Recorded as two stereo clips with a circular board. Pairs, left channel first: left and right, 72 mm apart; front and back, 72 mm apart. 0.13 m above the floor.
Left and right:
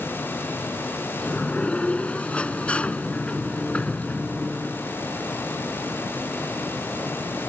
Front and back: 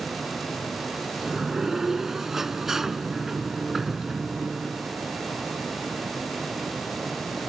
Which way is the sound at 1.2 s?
110° left.